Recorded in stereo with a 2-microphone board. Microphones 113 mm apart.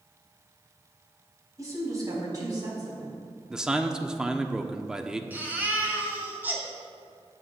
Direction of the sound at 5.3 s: 15° right (ahead or behind).